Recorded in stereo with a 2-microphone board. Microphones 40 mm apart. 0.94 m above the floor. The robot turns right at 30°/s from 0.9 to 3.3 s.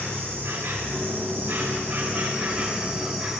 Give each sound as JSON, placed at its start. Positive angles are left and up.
{"t": 0.0, "sound": "an insect", "azimuth_deg": -75, "distance_m": 2.5}